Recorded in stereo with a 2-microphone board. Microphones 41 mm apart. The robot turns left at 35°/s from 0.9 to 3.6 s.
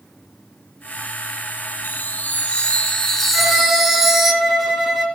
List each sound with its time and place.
1.8 s a chime: 55° left, 1.9 m; by 4.3 s 5° right, 1.9 m
3.3 s a violin: 10° right (ahead or behind), 3 m; by 5.0 s centre (ahead or behind), 3 m